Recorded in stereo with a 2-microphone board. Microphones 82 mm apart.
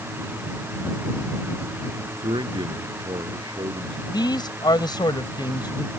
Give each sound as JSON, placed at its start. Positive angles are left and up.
{"t": 2.2, "sound": "a man speaking", "side_deg": -85}
{"t": 4.1, "sound": "a man speaking", "side_deg": 65}